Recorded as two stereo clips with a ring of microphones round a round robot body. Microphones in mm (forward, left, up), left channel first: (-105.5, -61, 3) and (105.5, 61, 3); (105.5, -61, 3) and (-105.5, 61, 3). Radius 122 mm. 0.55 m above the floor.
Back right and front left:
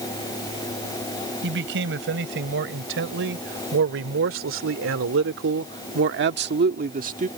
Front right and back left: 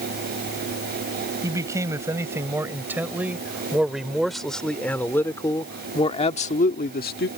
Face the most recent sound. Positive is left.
turn(degrees=-15)